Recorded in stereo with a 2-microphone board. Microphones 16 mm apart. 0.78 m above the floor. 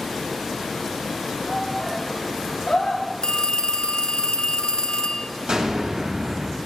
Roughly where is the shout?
Left.